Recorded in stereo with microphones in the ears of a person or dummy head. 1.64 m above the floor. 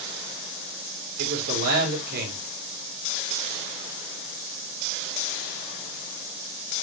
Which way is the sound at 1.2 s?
55° right (ahead or behind).